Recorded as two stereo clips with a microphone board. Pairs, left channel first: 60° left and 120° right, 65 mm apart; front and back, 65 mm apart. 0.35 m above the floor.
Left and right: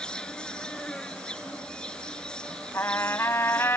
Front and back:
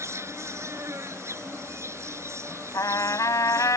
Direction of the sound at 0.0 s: 135° left.